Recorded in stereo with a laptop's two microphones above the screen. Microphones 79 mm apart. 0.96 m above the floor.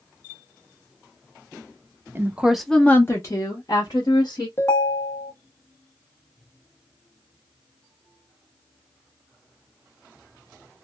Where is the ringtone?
30° left (ahead or behind), 0.6 m.